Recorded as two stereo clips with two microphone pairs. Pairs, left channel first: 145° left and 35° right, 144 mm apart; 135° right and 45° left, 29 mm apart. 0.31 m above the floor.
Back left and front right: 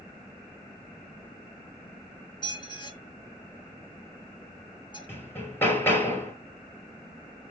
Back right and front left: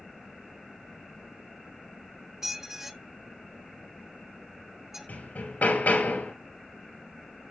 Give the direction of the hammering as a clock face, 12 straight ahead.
5 o'clock.